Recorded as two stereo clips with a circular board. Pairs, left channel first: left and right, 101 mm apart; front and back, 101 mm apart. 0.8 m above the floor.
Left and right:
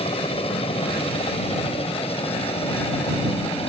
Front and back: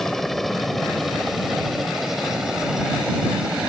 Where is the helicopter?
85° left; by 3.7 s 100° left.